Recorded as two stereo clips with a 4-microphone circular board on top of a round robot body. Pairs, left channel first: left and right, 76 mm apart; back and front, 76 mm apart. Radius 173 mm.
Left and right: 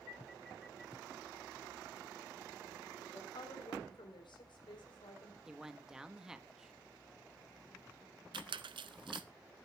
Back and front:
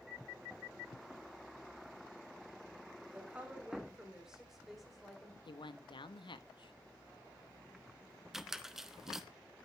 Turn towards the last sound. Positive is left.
turn(degrees=-85)